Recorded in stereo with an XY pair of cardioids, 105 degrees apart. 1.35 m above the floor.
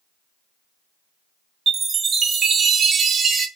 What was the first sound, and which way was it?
A chime, 45° right.